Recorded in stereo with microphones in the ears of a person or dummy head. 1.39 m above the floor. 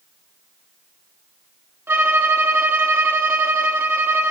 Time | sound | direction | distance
1.9 | a violin | 10° right (ahead or behind) | 0.7 m